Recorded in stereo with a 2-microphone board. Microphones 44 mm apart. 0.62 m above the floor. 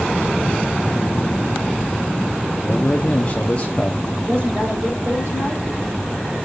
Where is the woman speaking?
55° right (ahead or behind), 3.5 m.